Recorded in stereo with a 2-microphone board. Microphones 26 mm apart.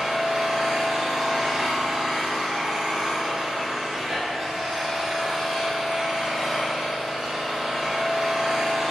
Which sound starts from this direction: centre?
An engine running, at 0.0 s.